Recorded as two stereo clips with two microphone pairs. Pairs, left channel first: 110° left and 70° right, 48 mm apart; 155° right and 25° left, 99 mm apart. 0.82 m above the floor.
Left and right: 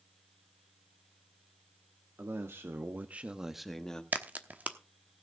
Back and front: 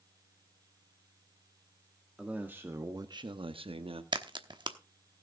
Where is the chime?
No chime in this recording.